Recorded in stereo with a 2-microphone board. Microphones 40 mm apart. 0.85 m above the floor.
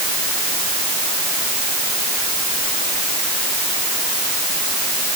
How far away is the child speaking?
I don't hear a child speaking.